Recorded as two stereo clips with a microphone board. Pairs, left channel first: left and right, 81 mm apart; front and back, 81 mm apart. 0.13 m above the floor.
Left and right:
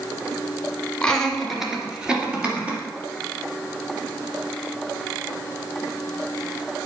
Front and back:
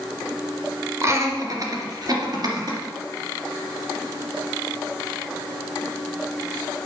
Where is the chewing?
I don't hear chewing.